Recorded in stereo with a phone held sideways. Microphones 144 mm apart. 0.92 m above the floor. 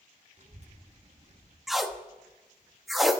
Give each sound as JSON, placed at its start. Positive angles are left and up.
{"t": 0.4, "sound": "a child speaking", "side_deg": -50, "distance_m": 0.9}
{"t": 1.7, "sound": "tape being pulled", "side_deg": 0, "distance_m": 0.6}